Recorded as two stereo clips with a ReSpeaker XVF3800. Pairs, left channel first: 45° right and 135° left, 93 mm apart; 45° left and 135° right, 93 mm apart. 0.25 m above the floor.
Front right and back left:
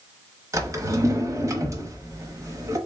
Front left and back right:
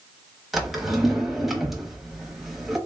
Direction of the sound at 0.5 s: 140° left.